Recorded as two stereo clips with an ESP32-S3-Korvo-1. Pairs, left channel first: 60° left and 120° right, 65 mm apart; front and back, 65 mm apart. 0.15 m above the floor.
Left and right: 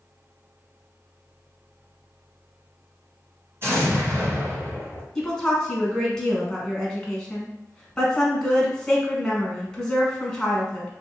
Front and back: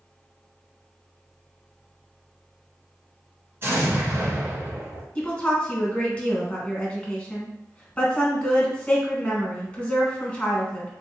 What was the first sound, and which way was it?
An explosion, 145° right.